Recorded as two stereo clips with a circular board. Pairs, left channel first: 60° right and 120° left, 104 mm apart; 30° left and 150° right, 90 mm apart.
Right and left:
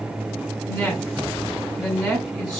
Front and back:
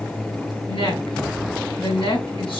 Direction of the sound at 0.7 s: 25° left.